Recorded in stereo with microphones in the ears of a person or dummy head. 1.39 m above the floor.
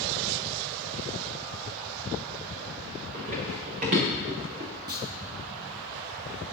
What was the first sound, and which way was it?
Running footsteps, 50° right (ahead or behind).